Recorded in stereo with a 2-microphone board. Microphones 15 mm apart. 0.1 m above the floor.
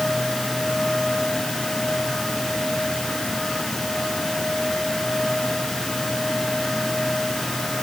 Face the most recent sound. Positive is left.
No sound to turn to.